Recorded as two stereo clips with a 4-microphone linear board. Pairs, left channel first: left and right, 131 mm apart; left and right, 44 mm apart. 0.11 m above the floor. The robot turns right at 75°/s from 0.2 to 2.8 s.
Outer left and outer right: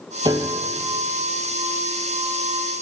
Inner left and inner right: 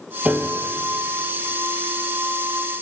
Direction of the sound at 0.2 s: 35° right (ahead or behind).